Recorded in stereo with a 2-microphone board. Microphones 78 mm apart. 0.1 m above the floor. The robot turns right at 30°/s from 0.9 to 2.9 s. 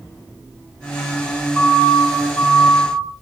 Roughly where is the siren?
Centre.